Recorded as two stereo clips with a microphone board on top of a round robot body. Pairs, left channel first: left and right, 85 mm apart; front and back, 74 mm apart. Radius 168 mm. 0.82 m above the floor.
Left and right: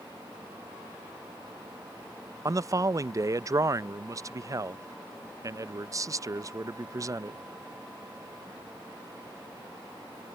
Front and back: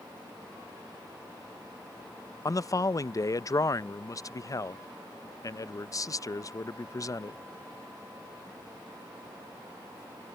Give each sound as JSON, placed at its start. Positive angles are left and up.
{"t": 2.5, "sound": "a man speaking", "azimuth_deg": -40}